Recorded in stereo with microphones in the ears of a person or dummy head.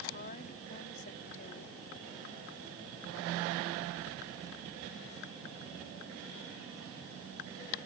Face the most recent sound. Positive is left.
turn(degrees=50)  # may be behind; listen again after turning